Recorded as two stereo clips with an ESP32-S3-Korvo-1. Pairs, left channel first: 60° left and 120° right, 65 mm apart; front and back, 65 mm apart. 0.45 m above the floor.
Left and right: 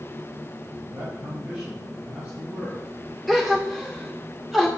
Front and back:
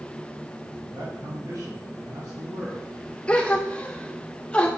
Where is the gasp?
30° right, 1.4 m.